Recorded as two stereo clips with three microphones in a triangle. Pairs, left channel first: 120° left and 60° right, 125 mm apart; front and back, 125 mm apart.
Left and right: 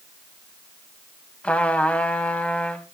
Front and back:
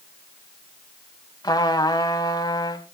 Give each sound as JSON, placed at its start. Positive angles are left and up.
{"t": 1.4, "sound": "a trumpet", "azimuth_deg": 45, "distance_m": 1.5}